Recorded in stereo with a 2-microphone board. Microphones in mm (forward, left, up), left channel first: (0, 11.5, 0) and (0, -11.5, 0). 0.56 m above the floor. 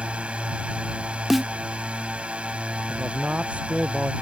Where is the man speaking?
75° right (ahead or behind).